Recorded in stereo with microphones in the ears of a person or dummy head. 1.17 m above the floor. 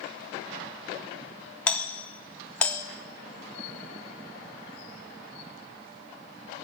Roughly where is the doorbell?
Centre.